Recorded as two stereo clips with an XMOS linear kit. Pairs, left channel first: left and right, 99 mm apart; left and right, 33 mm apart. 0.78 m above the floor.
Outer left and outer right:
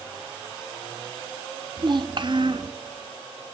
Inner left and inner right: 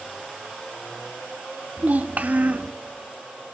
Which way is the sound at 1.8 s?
50° right (ahead or behind).